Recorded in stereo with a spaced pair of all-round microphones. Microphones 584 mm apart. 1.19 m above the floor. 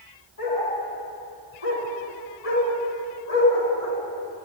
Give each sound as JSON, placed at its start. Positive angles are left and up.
{"t": 0.4, "sound": "a dog barking", "side_deg": 70, "distance_m": 6.0}